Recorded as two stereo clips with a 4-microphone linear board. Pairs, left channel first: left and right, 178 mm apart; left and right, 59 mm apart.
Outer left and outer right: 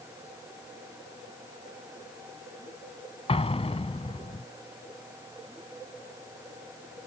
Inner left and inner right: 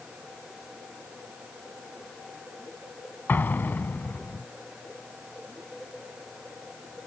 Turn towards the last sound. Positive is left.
turn(degrees=35)  # may be behind; listen again after turning